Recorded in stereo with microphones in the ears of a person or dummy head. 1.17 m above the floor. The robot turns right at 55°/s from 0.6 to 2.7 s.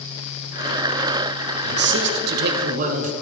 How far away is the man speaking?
About 0.7 m.